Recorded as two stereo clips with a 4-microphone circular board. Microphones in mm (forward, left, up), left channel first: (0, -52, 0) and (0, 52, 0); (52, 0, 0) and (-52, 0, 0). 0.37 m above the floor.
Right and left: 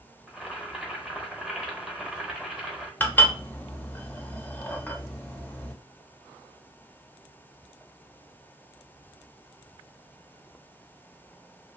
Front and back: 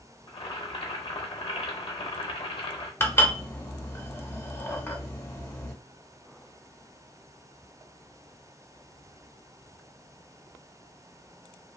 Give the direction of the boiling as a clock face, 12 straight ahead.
12 o'clock.